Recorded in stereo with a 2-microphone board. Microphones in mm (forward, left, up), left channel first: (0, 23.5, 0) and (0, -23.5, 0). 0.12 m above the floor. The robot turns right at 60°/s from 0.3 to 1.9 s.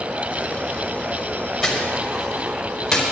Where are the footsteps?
Centre (ahead or behind), 4.5 m; by 3.0 s 10° left (ahead or behind), 5 m.